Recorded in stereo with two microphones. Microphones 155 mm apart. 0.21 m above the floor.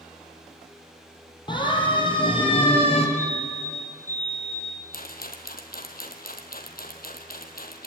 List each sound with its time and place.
1.5 s a siren: 30° left (ahead or behind), 5.5 m; by 3.1 s 40° left (ahead or behind), 4 m
3.2 s a fire alarm: 15° left (ahead or behind), 5.5 m
4.9 s a rattle: 75° left (ahead or behind), 2.5 m